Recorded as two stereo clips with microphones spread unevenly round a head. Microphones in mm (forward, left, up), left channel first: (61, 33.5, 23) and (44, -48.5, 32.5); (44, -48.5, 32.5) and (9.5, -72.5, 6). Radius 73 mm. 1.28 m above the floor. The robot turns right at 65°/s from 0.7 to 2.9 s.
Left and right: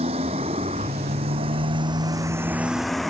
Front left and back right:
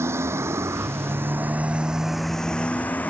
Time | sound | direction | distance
0.0 | a motorcycle | 135° right | ?